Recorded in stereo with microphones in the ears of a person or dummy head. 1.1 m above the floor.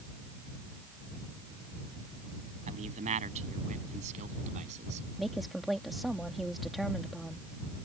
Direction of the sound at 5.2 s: Centre (ahead or behind).